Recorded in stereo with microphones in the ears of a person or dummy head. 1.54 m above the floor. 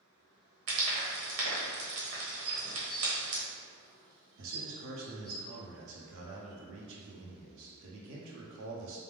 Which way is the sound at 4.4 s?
65° right (ahead or behind).